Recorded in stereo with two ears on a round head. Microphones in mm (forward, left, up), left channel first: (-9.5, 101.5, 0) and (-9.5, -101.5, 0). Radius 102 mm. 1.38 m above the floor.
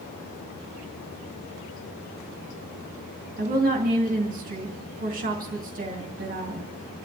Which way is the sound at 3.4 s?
35° right (ahead or behind).